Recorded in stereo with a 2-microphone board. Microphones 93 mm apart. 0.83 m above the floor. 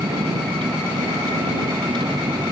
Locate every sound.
0.0 s a vehicle: 55° right (ahead or behind)